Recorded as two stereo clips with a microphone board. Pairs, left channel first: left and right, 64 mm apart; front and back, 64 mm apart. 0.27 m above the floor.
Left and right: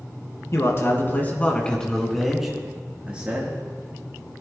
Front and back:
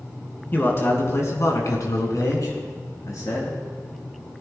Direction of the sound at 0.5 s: 55° left.